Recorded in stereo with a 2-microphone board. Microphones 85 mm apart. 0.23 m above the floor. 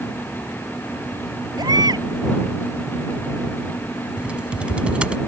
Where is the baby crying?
55° right (ahead or behind).